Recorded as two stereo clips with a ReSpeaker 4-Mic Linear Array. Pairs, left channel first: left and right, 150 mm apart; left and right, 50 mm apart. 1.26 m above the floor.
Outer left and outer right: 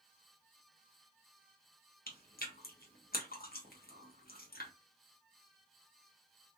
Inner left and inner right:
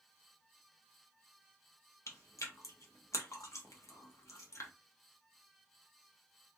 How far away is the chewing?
About 0.8 m.